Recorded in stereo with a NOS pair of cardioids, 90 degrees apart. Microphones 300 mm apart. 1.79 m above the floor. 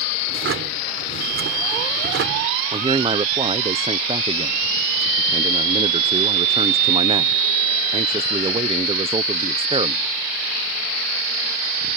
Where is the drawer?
50° right.